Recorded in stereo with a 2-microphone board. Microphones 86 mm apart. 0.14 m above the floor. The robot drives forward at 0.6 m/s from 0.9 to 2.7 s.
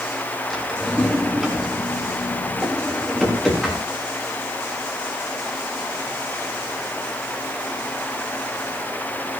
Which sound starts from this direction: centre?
A drawer, at 0.5 s.